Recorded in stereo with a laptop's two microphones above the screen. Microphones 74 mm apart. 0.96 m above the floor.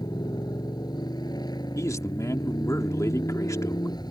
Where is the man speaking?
45° left (ahead or behind).